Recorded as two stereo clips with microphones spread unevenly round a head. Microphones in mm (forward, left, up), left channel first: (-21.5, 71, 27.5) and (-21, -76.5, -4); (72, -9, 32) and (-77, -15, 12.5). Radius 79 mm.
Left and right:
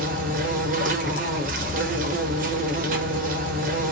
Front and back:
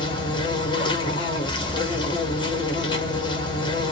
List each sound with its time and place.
0.0 s an insect: 50° right, 0.9 m